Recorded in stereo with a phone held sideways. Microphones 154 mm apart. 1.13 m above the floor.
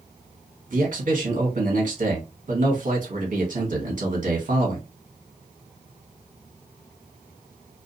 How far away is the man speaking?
About 1.2 m.